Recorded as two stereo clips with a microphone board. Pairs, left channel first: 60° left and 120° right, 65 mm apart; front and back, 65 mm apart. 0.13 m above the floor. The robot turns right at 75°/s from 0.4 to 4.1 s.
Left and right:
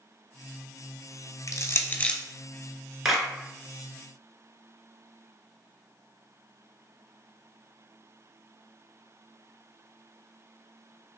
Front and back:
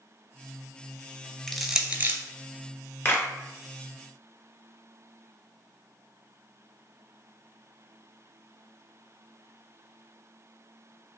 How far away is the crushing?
About 0.6 m.